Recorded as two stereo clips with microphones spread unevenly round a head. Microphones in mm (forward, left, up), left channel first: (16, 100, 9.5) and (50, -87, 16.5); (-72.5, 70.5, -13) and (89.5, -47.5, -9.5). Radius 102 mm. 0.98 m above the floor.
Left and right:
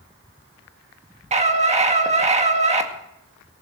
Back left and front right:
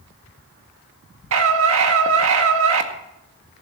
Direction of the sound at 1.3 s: 25° right.